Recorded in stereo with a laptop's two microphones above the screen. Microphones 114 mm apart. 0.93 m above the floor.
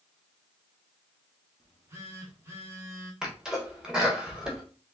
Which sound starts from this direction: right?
A phone buzzing, at 1.6 s.